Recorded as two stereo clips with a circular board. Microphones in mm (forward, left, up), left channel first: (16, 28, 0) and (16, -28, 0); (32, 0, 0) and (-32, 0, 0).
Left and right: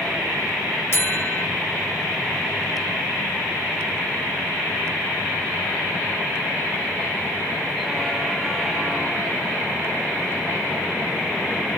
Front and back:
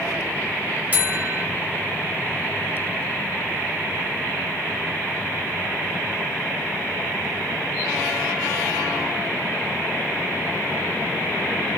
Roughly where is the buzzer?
Behind left.